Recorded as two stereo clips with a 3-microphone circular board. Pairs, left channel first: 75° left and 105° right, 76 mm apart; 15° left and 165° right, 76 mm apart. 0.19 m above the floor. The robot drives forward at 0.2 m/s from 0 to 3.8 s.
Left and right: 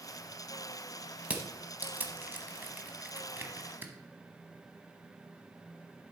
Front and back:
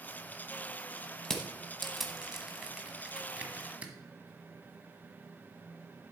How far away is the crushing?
About 1.0 m.